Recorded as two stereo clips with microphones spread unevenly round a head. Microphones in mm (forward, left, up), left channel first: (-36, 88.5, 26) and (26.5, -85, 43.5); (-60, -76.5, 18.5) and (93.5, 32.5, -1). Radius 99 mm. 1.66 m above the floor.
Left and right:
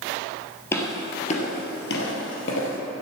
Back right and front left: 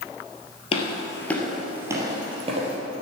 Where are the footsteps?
170° right, 2 m; by 2.8 s 90° left, 3 m.